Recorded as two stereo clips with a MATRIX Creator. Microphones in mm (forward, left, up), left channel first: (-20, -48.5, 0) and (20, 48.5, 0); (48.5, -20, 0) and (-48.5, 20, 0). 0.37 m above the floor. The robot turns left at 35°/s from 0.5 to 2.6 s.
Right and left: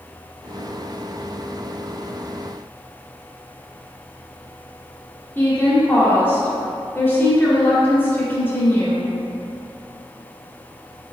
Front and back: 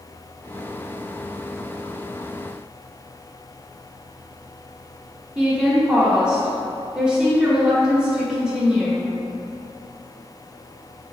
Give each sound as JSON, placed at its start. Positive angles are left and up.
{"t": 5.3, "sound": "a woman speaking", "azimuth_deg": -135, "distance_m": 0.8}